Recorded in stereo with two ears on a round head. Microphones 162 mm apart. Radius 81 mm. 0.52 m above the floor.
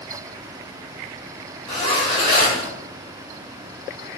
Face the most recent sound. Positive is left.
turn(degrees=25)  # may be behind; listen again after turning